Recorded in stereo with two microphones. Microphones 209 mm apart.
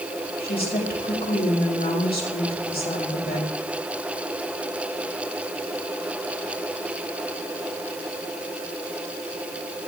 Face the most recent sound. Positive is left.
turn(degrees=50)  # may be behind; listen again after turning